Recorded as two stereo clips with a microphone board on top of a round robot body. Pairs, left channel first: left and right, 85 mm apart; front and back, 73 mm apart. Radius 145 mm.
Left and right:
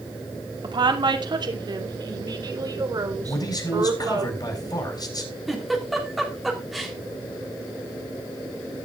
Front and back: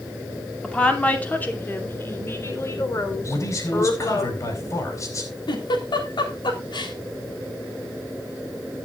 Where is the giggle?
Straight ahead, 3.5 m.